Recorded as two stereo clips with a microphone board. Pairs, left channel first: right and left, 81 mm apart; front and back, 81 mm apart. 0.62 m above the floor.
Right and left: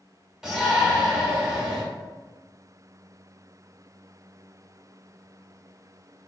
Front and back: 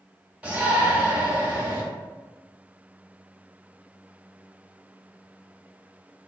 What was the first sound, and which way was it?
A shout, 155° left.